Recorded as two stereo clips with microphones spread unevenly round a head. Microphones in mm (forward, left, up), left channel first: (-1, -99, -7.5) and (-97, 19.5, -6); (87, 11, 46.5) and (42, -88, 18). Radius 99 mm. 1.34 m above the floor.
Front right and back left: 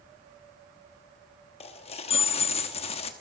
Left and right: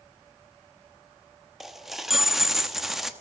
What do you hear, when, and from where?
1.6 s a dropped coin: 15° right, 0.9 m